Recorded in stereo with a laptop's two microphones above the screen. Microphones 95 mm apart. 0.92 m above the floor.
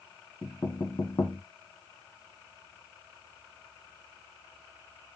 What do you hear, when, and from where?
0.4 s knocking: 45° left (ahead or behind), 1.7 m